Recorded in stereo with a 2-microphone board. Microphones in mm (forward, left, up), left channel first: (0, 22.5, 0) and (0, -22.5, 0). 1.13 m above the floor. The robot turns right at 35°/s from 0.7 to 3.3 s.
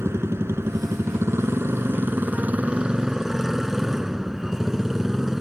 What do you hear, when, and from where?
0.0 s a motorcycle: 100° right; by 5.4 s 5° right